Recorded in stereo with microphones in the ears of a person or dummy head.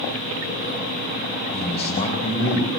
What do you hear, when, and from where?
1.5 s a man speaking: 30° left (ahead or behind), 4.5 m; by 2.7 s 40° left (ahead or behind), 4.5 m